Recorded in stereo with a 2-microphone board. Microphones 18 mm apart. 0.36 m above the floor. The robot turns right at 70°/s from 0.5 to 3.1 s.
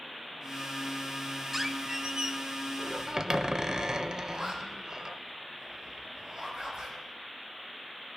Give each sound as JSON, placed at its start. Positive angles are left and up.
{"t": 1.5, "sound": "a squeak", "azimuth_deg": -165, "distance_m": 0.6}
{"t": 4.3, "sound": "a zipper", "side_deg": -45, "distance_m": 5.0}